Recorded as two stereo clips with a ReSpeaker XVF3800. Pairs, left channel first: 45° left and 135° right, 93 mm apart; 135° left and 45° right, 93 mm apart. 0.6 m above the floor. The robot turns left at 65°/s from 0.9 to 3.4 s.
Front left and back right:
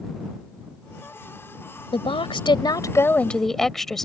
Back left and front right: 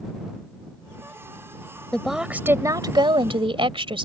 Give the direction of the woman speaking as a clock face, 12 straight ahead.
10 o'clock.